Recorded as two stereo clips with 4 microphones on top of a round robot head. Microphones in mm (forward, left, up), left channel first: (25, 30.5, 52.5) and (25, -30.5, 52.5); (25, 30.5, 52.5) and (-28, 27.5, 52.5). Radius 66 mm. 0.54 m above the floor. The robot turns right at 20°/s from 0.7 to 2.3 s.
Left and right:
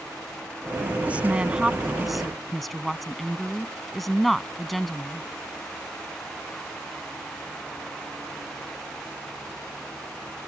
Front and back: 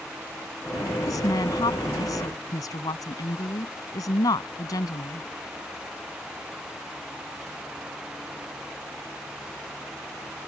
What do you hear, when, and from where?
1.1 s a woman speaking: 25° right; by 5.3 s straight ahead